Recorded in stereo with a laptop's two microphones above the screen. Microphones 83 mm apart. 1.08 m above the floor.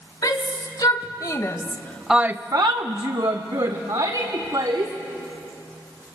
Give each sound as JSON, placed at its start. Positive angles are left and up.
{"t": 0.2, "sound": "a shout", "side_deg": 50, "distance_m": 2.5}